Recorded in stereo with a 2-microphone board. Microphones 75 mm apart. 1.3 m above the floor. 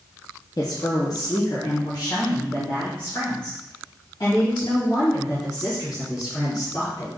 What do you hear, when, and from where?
0.6 s a woman speaking: 45° left (ahead or behind), 0.7 m; by 7.1 s 50° left (ahead or behind), 4 m